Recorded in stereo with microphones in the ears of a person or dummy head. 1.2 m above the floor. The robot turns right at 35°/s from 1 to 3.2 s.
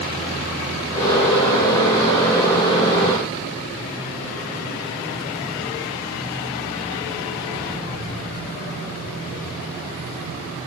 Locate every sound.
Only background noise.